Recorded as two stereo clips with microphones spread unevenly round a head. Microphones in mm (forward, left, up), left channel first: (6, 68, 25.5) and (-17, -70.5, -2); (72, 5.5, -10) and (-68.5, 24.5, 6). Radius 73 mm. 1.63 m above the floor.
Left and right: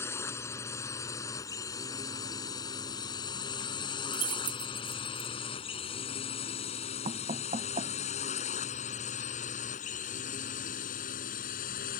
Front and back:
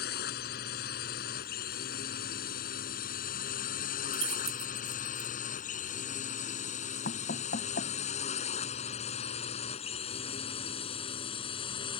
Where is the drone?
10° left; by 12.0 s 50° left.